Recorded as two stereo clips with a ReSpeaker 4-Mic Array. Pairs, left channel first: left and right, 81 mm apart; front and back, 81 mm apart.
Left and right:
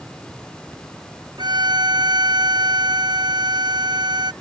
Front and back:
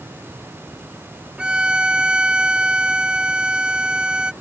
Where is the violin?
105° right.